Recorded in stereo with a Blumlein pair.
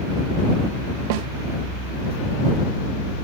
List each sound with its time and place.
1.1 s a snare drum: 45° right